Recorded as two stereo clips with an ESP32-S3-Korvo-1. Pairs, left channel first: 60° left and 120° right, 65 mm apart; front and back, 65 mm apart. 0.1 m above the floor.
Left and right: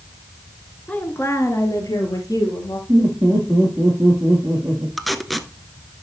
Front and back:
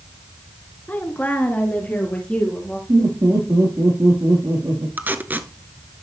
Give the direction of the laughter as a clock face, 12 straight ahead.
6 o'clock.